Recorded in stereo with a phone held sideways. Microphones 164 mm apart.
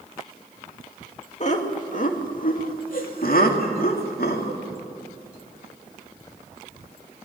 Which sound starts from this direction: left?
Laughter, at 1.4 s.